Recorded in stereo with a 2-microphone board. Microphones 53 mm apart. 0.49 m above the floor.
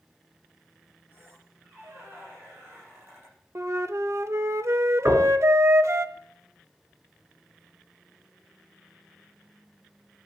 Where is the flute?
65° right (ahead or behind), 0.7 m.